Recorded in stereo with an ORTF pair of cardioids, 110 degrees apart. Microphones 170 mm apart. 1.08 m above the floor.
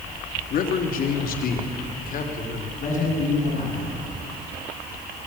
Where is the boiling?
I don't hear boiling.